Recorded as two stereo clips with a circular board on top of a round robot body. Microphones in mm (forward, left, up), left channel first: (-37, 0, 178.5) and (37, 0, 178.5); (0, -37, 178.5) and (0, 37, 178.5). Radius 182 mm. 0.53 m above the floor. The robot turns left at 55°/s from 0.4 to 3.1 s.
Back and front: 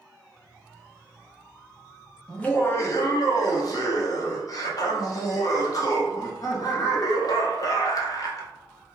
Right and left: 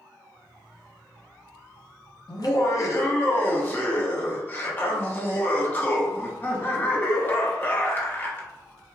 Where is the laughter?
100° right, 1.1 m; by 8.5 s 145° right, 1.1 m.